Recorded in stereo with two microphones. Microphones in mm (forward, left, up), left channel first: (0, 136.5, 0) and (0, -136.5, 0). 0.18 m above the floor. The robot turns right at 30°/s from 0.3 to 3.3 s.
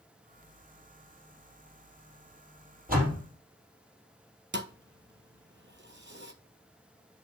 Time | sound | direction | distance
2.9 | a door slam | 35° right (ahead or behind) | 3.5 m
4.5 | a thud | 45° right (ahead or behind) | 0.8 m